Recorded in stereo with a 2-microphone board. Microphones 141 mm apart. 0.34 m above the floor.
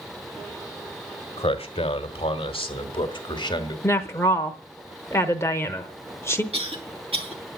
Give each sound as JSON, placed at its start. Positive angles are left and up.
{"t": 1.4, "sound": "a man speaking", "side_deg": 40, "distance_m": 1.5}
{"t": 3.8, "sound": "a woman speaking", "side_deg": 20, "distance_m": 0.9}
{"t": 6.5, "sound": "a cough", "side_deg": -45, "distance_m": 3.0}